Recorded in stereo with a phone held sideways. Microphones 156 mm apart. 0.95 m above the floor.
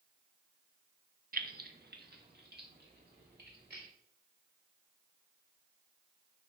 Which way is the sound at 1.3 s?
65° right (ahead or behind).